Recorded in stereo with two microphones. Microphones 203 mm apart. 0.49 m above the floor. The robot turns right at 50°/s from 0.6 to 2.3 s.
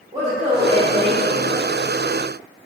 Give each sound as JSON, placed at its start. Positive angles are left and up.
{"t": 0.1, "sound": "a woman speaking", "azimuth_deg": -45, "distance_m": 1.5}